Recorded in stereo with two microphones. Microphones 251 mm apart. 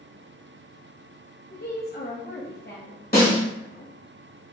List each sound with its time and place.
1.5 s a woman speaking: 40° left (ahead or behind), 1.0 m
3.1 s a snare drum: 35° left (ahead or behind), 2 m